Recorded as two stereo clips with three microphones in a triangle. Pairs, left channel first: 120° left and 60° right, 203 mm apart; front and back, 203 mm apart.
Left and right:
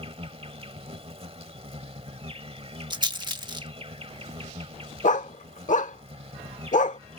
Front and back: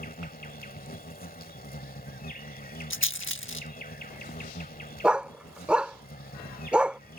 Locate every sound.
0.0 s an insect: 10° right
2.9 s a rattle: 10° left
5.0 s a dog barking: 100° left